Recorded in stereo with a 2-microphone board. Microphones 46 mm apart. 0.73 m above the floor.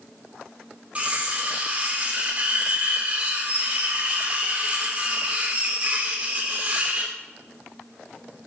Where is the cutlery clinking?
30° right (ahead or behind), 1.2 m.